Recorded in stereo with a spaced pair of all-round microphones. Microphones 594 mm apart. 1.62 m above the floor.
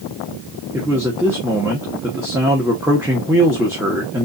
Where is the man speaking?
5° right (ahead or behind), 1.5 m.